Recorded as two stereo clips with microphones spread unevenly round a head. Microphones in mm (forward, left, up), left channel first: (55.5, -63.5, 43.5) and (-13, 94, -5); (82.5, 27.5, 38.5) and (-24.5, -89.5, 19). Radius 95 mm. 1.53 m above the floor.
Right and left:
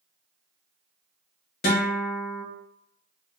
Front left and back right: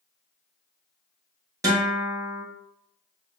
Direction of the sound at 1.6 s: 60° right.